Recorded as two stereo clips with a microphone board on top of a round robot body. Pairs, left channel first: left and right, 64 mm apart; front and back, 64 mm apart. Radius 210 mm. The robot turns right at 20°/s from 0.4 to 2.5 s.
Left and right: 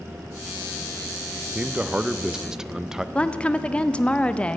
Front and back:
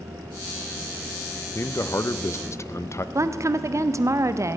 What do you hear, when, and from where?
1.6 s a man speaking: 30° right, 0.7 m; by 3.0 s 10° right, 0.7 m
3.1 s a woman speaking: 160° left, 0.7 m